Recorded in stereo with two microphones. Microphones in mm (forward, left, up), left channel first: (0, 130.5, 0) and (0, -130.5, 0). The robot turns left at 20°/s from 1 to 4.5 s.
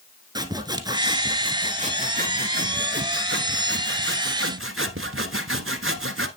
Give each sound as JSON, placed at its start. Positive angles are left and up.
{"t": 0.3, "sound": "sawing", "azimuth_deg": -20, "distance_m": 1.0}